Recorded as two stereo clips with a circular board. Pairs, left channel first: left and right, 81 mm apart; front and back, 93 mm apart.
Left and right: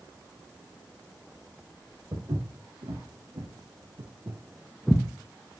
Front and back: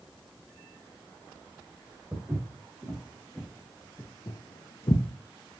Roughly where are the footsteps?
Behind right.